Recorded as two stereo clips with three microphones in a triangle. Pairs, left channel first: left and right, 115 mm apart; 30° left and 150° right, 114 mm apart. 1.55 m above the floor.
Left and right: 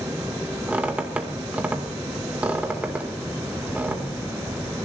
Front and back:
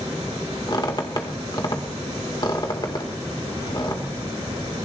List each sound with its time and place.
0.7 s a squeak: 15° right, 1.8 m